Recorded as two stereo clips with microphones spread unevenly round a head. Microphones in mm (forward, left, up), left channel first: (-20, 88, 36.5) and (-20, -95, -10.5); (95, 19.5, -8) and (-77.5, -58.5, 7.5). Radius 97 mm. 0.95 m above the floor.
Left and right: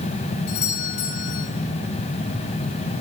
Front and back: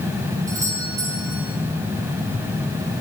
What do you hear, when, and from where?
0.5 s a doorbell: 130° left, 9 m